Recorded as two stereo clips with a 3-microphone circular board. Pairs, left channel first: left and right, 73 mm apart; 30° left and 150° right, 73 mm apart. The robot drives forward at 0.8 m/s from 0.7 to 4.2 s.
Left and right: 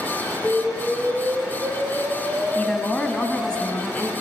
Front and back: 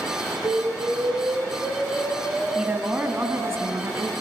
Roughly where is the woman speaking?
Behind left.